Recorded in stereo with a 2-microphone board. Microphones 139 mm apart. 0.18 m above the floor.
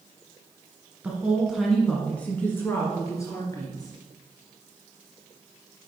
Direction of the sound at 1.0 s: 10° right (ahead or behind).